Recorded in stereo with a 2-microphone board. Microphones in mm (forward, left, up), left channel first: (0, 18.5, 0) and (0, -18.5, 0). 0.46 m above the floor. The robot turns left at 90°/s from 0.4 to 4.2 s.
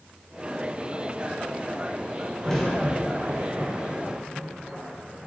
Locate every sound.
2.4 s a crack: 20° left (ahead or behind), 2.5 m; by 5.3 s 40° right (ahead or behind), 2.5 m